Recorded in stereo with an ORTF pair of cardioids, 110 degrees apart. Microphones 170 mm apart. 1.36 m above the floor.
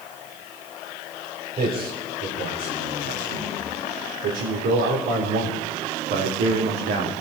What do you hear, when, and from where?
1.6 s a man speaking: 65° right, 5.5 m; by 7.1 s 80° right, 2.5 m